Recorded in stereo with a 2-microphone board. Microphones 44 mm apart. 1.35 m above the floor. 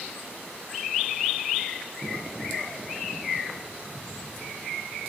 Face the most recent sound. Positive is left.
turn(degrees=40)  # may be behind; listen again after turning